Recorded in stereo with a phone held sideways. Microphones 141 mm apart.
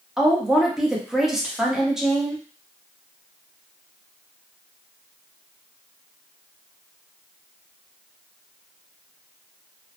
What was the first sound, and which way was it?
A woman speaking, 5° right (ahead or behind).